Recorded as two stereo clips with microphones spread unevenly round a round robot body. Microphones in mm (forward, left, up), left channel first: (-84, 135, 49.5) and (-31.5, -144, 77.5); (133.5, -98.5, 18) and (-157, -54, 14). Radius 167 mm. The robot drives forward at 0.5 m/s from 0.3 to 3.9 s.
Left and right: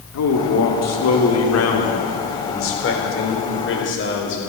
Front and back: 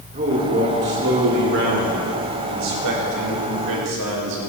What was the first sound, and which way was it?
A man speaking, 105° left.